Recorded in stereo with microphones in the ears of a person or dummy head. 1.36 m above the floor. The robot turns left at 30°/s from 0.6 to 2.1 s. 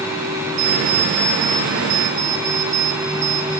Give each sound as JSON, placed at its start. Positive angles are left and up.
{"t": 0.6, "sound": "an alarm clock", "azimuth_deg": -125, "distance_m": 4.5}